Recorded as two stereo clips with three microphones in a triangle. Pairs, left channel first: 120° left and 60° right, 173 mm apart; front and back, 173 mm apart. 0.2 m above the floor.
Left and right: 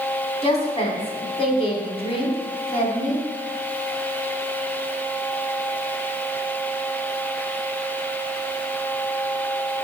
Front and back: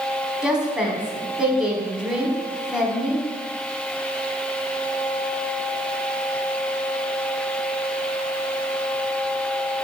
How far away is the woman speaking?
About 1.2 m.